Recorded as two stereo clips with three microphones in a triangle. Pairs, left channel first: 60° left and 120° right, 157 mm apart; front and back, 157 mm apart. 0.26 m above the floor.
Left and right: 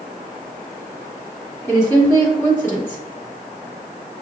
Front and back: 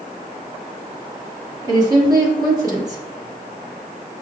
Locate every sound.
1.6 s a woman speaking: 125° left, 1.9 m